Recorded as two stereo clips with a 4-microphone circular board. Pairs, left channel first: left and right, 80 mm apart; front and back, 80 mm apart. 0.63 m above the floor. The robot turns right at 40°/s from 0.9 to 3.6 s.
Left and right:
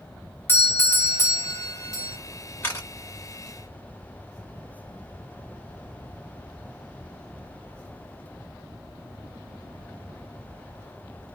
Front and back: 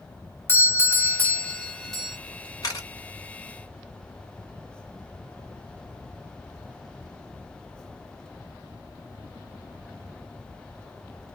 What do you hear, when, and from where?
0.5 s a doorbell: 40° left, 1.3 m; by 2.2 s 90° left, 1.3 m
2.6 s a camera shutter: 30° left, 1.9 m; by 2.9 s 40° left, 1.9 m